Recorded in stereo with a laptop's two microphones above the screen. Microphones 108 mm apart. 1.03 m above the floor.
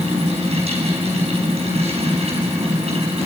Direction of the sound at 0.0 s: 75° right (ahead or behind).